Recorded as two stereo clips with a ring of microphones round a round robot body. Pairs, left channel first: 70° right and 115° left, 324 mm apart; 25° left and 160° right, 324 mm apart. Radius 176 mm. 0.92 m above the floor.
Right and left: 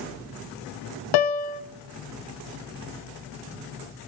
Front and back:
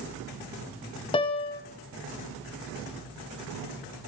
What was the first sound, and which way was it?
A piano, 55° right.